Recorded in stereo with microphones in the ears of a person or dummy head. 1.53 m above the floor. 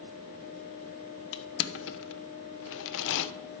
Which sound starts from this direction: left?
Crushing, at 1.3 s.